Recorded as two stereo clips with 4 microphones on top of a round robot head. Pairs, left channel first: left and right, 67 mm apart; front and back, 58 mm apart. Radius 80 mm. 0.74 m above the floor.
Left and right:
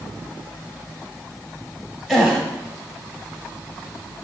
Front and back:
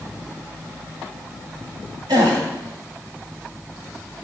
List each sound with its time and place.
2.1 s a gasp: 175° right, 0.9 m